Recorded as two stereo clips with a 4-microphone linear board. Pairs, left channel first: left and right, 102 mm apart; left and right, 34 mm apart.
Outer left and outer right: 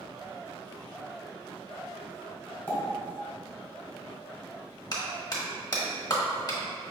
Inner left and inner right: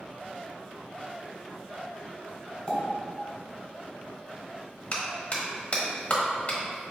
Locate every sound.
2.7 s a pop: 20° left (ahead or behind), 1.4 m
4.9 s a clap: 40° left (ahead or behind), 1.1 m